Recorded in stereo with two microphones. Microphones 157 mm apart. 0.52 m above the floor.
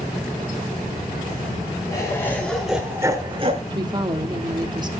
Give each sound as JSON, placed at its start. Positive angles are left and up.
{"t": 1.9, "sound": "laughter", "side_deg": 20, "distance_m": 2.5}
{"t": 3.7, "sound": "a woman speaking", "side_deg": -25, "distance_m": 1.2}